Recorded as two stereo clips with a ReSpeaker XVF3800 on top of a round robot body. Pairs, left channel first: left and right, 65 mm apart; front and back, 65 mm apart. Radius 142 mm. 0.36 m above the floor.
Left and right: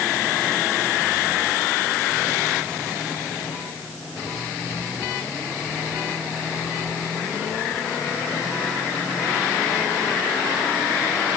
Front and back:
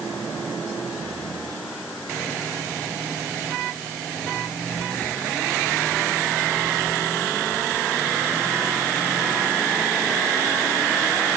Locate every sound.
Only background noise.